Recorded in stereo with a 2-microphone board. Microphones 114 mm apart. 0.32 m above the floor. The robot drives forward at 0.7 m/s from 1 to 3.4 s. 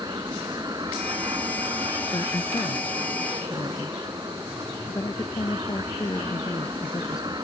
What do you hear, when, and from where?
0.0 s an aircraft: 35° right (ahead or behind); by 7.4 s 40° right (ahead or behind)
2.1 s a woman speaking: 40° left (ahead or behind); by 7.3 s 35° left (ahead or behind)